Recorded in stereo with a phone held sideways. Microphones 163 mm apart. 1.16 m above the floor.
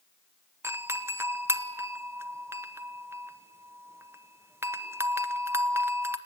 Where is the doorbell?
15° right (ahead or behind), 1.0 m.